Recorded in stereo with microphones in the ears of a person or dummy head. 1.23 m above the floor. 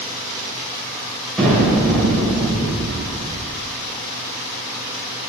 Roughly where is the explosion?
Centre.